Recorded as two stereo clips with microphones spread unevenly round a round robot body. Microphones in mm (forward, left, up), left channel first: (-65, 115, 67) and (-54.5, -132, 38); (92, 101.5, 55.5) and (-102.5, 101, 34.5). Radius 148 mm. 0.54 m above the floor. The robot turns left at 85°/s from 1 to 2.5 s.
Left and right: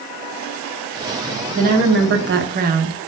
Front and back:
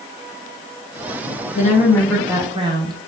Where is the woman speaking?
40° right, 1.0 m; by 3.0 s 125° right, 1.0 m.